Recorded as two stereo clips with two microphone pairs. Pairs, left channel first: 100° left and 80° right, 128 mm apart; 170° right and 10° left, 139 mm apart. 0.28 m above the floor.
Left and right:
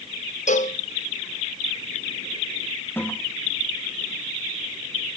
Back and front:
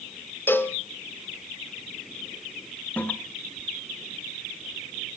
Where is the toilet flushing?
130° left, 1.1 m.